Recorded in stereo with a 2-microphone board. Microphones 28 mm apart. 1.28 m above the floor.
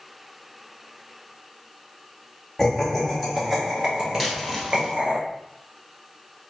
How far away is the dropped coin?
About 1.3 m.